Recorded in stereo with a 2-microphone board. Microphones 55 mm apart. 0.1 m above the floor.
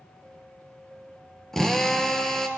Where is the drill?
5° left (ahead or behind), 0.8 m.